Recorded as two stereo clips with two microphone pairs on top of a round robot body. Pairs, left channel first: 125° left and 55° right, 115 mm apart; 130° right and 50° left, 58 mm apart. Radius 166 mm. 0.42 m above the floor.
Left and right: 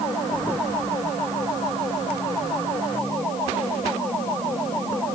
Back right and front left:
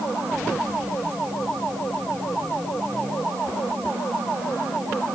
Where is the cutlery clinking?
I don't hear cutlery clinking.